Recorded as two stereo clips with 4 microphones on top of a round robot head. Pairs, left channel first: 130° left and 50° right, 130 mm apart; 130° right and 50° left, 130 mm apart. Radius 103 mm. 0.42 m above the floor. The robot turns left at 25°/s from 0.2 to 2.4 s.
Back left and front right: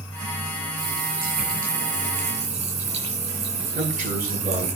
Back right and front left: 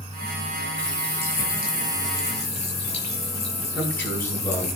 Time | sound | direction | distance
0.8 | a running tap | 45° right | 7 m
3.7 | a man speaking | 55° right | 8 m